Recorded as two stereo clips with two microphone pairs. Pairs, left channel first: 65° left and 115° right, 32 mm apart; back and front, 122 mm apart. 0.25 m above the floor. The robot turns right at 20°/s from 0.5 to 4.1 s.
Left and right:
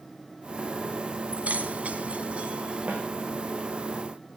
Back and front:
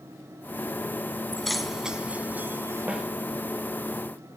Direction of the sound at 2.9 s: 80° right.